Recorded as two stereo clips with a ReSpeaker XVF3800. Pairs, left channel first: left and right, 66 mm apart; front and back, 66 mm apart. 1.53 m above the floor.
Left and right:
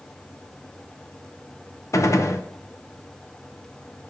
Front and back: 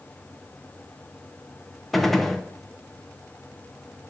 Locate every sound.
1.9 s a gunshot: 90° left, 0.7 m